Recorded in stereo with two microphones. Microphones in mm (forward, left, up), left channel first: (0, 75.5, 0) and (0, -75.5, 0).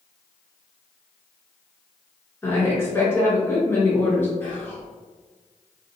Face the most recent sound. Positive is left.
turn(degrees=15)  # may be behind; listen again after turning